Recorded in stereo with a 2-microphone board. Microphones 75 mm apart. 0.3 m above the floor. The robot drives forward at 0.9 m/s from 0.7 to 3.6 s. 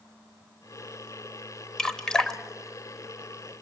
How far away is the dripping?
About 1.1 m.